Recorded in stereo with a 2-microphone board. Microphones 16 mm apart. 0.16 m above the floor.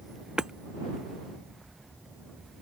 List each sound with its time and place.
0.4 s hammering: 60° right (ahead or behind)